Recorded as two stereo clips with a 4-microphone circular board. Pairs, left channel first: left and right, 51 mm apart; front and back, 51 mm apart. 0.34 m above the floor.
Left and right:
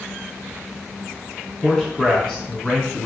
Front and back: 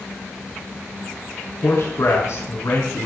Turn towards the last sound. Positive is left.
turn(degrees=15)